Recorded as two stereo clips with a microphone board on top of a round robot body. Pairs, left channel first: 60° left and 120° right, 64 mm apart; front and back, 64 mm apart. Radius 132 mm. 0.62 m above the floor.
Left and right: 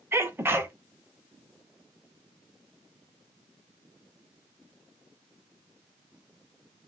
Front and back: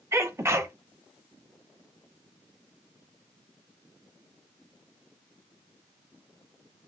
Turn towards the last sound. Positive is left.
turn(degrees=-160)